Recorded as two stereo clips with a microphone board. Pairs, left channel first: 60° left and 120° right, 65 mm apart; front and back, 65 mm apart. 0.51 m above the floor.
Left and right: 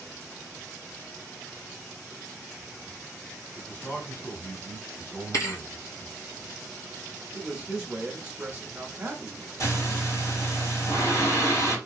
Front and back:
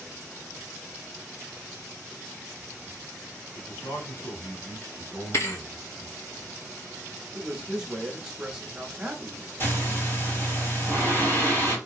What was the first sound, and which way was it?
A man speaking, straight ahead.